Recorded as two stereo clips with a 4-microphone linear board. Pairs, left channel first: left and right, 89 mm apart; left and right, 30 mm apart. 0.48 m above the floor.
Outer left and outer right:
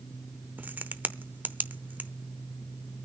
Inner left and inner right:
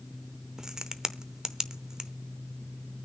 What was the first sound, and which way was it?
A crack, 20° right (ahead or behind).